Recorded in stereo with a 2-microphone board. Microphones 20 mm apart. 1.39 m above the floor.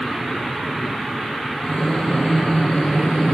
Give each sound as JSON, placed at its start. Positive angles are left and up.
{"t": 1.6, "sound": "breathing", "side_deg": 75, "distance_m": 1.0}